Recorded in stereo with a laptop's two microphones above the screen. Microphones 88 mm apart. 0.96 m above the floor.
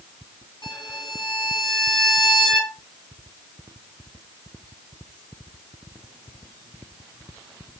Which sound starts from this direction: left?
A violin, at 0.6 s.